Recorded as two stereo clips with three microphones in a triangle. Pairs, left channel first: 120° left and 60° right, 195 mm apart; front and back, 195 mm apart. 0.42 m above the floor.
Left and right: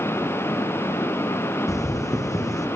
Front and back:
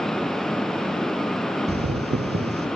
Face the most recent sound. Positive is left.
turn(degrees=-170)